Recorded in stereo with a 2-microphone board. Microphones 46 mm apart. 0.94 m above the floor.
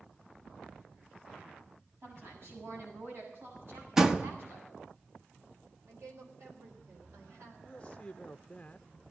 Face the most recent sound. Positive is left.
turn(degrees=20)  # may be behind; listen again after turning